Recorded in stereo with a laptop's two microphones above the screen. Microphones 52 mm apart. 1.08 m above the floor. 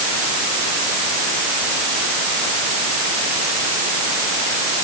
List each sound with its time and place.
Only background noise.